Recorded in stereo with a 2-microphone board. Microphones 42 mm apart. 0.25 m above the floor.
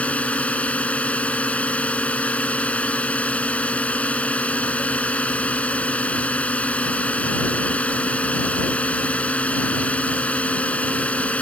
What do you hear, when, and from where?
0.0 s a drone: 35° left (ahead or behind)